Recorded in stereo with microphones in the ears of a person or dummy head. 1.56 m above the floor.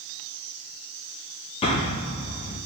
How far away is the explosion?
About 0.7 m.